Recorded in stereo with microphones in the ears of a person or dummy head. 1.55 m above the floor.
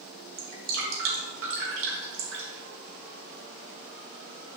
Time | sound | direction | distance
0.4 | dripping | 70° right (ahead or behind) | 3.5 m